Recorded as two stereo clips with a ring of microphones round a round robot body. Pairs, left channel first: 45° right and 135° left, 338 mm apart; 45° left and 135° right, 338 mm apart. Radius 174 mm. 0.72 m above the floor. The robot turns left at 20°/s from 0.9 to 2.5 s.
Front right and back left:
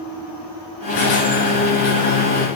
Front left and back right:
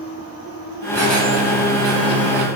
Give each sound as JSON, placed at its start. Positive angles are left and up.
{"t": 0.9, "sound": "a squeak", "azimuth_deg": -40, "distance_m": 1.9}